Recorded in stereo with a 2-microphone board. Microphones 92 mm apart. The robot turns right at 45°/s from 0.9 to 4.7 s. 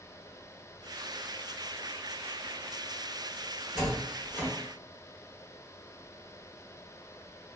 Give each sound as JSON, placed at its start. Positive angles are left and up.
{"t": 3.8, "sound": "a door slam", "side_deg": -5, "distance_m": 1.3}